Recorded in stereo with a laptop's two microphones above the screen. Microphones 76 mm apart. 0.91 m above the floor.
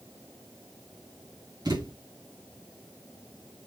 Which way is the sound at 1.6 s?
65° right (ahead or behind).